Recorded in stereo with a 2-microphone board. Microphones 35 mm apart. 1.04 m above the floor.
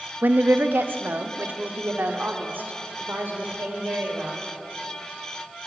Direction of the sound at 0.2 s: 75° right (ahead or behind).